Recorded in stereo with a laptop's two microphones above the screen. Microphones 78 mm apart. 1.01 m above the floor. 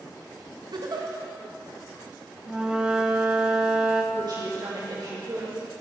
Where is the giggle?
60° right (ahead or behind), 0.7 m.